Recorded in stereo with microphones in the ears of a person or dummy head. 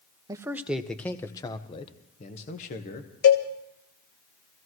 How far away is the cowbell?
About 1.2 m.